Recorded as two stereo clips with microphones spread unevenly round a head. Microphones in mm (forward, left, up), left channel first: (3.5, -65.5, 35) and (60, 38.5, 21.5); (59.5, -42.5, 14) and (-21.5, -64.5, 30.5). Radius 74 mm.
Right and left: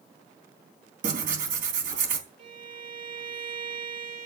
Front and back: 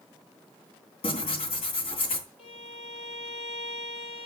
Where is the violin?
50° left, 7.5 m.